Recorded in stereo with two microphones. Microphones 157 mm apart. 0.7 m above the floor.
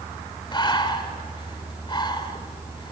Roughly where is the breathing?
Left.